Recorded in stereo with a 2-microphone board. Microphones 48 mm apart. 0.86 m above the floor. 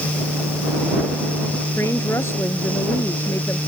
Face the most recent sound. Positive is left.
turn(degrees=65)  # may be behind; listen again after turning